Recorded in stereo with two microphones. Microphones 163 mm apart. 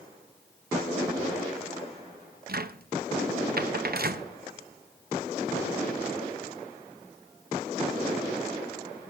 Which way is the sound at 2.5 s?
70° right (ahead or behind).